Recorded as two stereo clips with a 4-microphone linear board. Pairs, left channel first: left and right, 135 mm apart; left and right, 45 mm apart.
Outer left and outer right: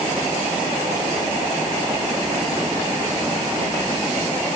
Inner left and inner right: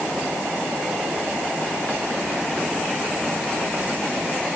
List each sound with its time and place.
Only background noise.